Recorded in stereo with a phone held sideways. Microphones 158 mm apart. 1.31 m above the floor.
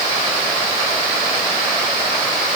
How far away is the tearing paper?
No tearing paper in this recording.